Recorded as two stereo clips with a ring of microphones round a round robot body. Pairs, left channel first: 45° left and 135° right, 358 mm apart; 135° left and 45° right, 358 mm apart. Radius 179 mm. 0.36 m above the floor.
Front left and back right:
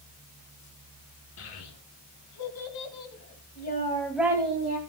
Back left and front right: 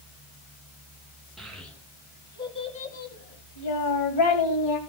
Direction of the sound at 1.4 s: 45° left.